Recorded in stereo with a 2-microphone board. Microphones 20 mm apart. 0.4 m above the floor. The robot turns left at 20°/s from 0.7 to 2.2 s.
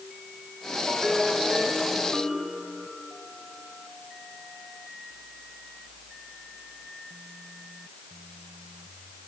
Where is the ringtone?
10° right (ahead or behind), 9 m; by 2.6 s 15° left (ahead or behind), 9 m.